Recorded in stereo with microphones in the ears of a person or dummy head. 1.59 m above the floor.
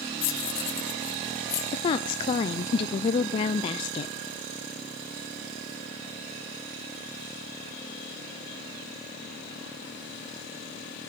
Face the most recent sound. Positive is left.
turn(degrees=30)  # may be behind; listen again after turning